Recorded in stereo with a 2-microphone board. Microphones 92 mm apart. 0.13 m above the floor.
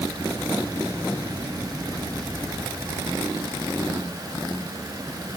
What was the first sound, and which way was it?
Only background noise.